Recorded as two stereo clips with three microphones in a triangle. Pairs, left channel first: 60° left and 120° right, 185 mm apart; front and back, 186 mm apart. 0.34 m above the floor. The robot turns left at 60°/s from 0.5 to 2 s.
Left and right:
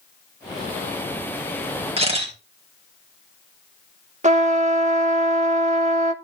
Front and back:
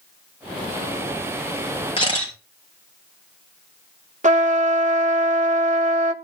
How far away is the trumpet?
About 0.6 m.